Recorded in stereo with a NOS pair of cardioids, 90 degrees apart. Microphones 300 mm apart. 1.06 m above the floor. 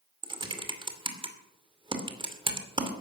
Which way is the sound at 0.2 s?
15° right.